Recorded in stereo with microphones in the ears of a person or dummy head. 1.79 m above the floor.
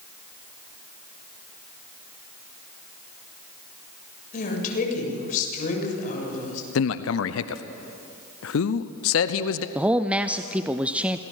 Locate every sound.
4.3 s a woman speaking: 50° left (ahead or behind), 7 m
6.8 s a man speaking: 75° left (ahead or behind), 0.8 m
9.8 s a man speaking: 5° right (ahead or behind), 0.5 m